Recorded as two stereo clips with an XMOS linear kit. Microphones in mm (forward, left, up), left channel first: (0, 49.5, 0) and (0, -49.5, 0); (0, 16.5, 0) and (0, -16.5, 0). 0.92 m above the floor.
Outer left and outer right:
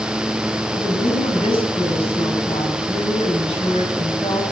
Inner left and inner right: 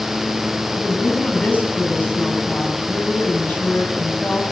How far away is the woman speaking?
About 6.5 m.